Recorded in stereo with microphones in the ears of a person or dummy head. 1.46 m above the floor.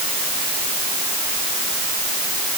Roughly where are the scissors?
No scissors in this recording.